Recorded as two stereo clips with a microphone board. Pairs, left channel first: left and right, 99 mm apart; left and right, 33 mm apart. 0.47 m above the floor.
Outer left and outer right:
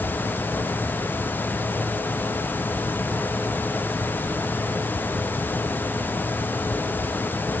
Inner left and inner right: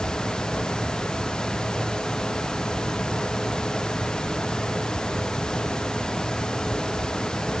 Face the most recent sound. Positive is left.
No sound to turn to.